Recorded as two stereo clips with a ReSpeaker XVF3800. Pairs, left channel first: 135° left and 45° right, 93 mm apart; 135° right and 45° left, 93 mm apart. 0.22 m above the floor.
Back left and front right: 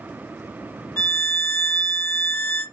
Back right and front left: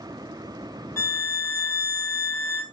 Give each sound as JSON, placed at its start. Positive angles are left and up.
{"t": 1.0, "sound": "a violin", "azimuth_deg": 180, "distance_m": 0.6}